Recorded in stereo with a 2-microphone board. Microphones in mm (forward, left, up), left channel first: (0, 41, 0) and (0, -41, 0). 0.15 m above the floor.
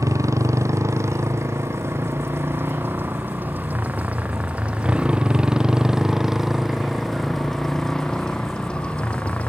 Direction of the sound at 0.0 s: 40° right (ahead or behind).